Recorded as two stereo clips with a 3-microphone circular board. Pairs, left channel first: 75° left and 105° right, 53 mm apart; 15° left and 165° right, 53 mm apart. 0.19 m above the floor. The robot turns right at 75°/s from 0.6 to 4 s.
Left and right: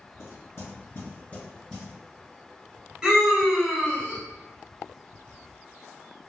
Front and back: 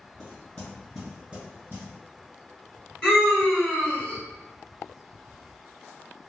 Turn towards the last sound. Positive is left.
turn(degrees=35)